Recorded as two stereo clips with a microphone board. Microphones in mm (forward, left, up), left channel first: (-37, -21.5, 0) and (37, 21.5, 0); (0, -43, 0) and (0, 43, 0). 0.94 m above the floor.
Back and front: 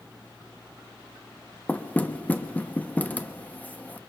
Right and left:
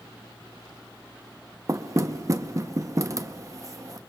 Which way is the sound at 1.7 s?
140° left.